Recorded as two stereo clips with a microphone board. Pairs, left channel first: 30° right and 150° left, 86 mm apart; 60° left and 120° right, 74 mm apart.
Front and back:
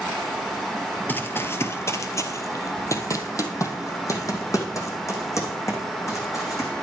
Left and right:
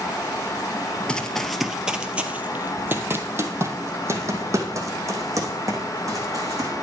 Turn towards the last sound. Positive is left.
turn(degrees=-85)